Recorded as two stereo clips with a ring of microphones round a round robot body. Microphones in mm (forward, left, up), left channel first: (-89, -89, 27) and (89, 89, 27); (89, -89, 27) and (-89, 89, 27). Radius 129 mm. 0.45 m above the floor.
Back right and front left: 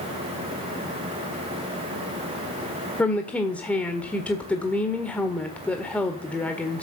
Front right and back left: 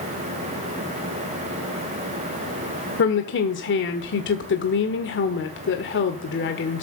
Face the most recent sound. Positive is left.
turn(degrees=-55)